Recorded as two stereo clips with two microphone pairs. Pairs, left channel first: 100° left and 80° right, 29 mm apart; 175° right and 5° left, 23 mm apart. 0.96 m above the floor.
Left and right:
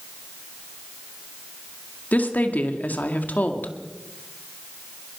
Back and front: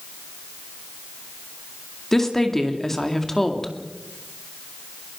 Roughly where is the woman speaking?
Left.